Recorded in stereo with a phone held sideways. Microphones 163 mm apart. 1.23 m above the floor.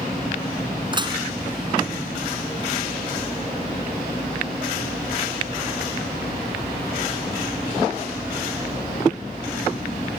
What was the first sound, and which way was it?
Dishes clattering, 30° right (ahead or behind).